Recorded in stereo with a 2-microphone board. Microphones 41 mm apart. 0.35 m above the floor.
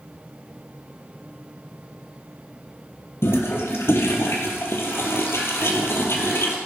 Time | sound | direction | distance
3.2 | a toilet flushing | 75° left (ahead or behind) | 3 m